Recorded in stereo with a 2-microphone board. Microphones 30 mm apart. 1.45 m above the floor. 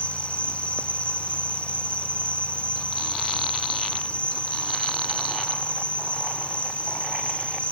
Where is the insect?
50° left (ahead or behind).